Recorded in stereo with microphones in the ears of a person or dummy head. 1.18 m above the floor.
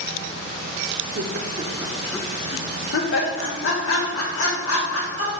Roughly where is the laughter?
Right.